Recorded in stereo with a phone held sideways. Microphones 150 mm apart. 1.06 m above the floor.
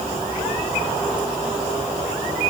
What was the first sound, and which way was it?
Only background noise.